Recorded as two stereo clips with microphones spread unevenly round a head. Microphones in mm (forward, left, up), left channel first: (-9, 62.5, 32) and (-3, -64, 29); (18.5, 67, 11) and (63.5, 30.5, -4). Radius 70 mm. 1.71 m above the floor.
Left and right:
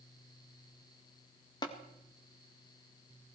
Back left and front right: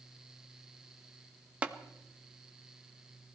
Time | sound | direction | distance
1.6 | tapping | 35° left | 1.7 m